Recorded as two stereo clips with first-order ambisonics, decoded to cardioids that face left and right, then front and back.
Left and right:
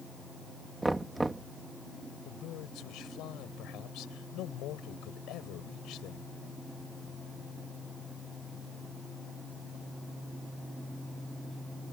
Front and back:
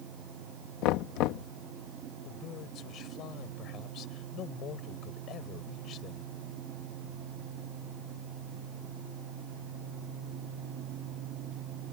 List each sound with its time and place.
0.8 s knocking: 10° right
2.2 s a man speaking: 50° left